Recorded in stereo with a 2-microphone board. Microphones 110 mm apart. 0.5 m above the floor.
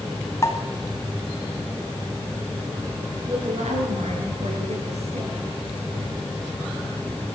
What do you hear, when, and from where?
0.4 s a pop: 30° left (ahead or behind), 2.5 m
3.3 s a woman speaking: 80° right, 7.5 m